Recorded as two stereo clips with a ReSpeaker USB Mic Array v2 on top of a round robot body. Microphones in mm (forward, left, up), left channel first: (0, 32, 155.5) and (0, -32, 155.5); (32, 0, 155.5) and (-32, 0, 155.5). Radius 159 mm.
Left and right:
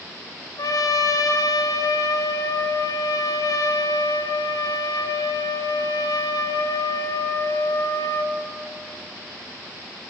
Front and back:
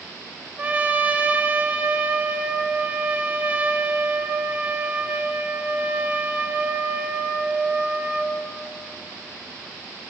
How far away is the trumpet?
About 1.7 m.